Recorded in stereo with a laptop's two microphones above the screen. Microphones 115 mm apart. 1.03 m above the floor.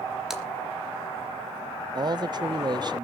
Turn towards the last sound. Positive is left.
turn(degrees=-40)  # may be behind; listen again after turning